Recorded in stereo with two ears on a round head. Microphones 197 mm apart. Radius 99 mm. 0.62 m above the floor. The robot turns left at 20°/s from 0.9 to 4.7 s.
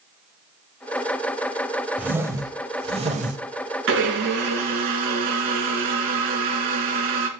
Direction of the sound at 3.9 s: 60° right (ahead or behind).